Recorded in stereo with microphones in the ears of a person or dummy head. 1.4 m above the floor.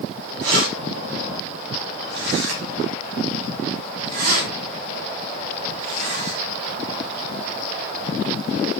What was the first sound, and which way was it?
Keys jangling, 75° right (ahead or behind).